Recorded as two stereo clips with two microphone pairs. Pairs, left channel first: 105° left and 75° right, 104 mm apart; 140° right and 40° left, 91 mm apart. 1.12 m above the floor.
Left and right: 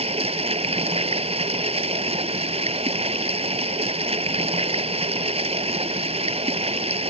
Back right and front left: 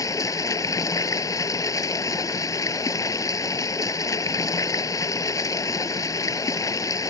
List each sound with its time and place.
0.0 s running water: 90° right